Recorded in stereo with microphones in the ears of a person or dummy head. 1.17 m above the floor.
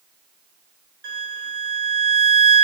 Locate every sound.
1.0 s a violin: 65° right (ahead or behind), 1.1 m